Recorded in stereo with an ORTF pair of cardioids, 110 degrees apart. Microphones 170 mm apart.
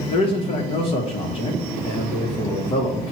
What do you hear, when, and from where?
0.1 s a man speaking: 35° left, 0.7 m